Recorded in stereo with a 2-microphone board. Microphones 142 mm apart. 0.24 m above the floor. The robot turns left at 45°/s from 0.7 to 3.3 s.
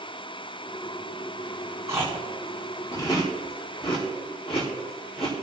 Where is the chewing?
20° right (ahead or behind), 5 m; by 5.3 s 45° left (ahead or behind), 5 m.